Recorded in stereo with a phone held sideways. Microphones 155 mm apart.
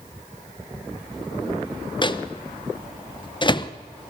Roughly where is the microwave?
Left.